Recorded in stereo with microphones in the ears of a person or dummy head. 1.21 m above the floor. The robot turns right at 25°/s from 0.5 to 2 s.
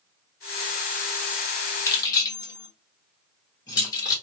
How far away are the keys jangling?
About 1.2 m.